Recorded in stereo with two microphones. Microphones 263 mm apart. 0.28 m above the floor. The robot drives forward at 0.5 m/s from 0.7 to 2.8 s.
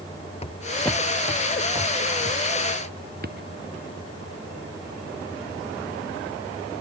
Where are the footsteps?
25° left (ahead or behind); by 3.5 s 40° right (ahead or behind).